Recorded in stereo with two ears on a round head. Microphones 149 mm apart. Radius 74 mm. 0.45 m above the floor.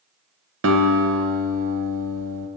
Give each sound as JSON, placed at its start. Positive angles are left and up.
{"t": 0.6, "sound": "a guitar", "side_deg": -85, "distance_m": 0.8}